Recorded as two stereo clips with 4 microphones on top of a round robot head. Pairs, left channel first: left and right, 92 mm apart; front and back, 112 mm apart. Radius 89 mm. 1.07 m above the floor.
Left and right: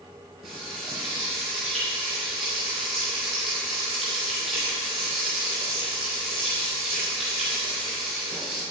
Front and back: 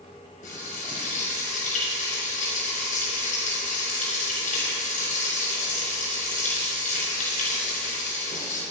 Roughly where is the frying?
Ahead.